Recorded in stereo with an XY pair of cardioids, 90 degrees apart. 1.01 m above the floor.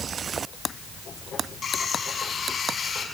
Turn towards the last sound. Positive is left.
turn(degrees=50)